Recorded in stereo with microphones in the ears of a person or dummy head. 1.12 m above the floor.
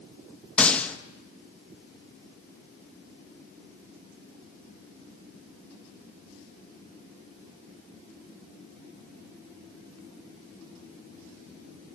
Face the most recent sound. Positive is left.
turn(degrees=5)  # may be behind; listen again after turning